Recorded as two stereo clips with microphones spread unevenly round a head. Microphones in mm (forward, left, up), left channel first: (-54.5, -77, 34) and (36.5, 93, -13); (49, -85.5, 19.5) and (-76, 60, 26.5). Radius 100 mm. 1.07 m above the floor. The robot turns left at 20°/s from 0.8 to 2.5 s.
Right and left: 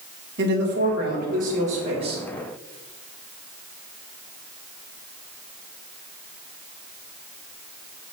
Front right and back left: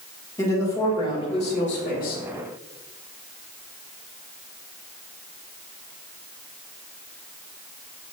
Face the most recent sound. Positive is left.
turn(degrees=-10)